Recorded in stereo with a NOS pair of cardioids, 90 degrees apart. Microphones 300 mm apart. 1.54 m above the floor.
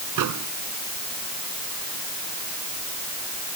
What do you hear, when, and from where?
0.2 s a microwave: 70° right